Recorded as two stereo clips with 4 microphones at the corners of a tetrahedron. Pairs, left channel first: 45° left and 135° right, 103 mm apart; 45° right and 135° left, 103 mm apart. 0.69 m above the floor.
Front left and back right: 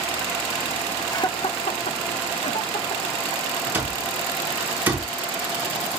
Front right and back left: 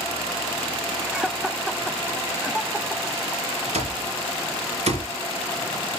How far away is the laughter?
About 0.6 m.